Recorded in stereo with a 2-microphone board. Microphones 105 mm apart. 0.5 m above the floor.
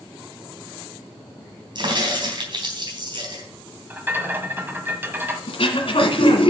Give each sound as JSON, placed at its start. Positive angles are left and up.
{"t": 1.8, "sound": "a crack", "side_deg": -50, "distance_m": 3.0}
{"t": 3.9, "sound": "a rattle", "side_deg": -20, "distance_m": 1.5}
{"t": 5.5, "sound": "throat clearing", "side_deg": 65, "distance_m": 2.0}